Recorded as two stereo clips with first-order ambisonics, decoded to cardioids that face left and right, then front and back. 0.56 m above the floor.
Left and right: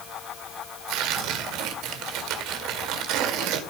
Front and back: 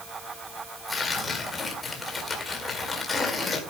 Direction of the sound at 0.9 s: 75° right.